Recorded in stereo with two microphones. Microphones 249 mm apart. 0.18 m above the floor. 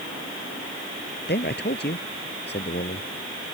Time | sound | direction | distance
1.3 | a man speaking | 40° left (ahead or behind) | ?